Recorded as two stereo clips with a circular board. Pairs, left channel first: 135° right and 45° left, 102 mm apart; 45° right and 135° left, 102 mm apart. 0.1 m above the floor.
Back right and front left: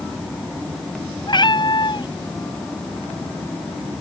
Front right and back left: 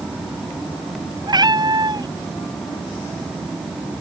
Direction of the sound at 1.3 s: Straight behind.